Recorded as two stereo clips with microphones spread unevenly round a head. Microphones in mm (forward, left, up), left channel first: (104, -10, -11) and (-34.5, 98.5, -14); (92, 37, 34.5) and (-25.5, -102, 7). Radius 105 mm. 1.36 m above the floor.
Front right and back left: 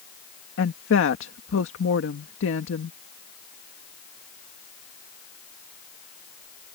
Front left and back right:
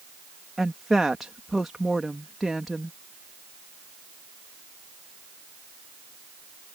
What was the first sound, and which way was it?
A woman speaking, 40° right.